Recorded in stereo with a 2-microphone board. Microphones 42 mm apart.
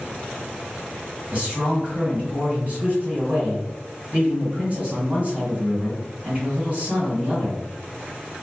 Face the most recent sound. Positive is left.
turn(degrees=-35)  # may be behind; listen again after turning